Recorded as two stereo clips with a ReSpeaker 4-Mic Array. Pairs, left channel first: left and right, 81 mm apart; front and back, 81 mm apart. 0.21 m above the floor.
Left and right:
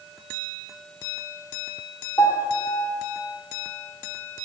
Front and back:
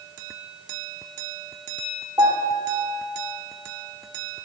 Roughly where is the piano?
Behind left.